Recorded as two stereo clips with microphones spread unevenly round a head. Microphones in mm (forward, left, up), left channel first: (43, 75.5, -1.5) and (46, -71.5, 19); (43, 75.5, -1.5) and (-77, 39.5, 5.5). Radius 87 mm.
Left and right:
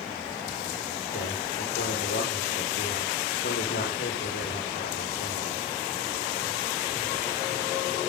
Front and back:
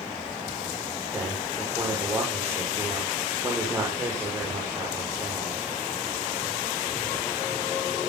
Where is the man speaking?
130° left, 6.5 m.